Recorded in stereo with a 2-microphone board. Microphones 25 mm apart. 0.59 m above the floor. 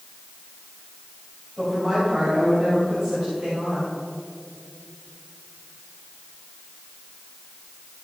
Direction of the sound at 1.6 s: 30° right (ahead or behind).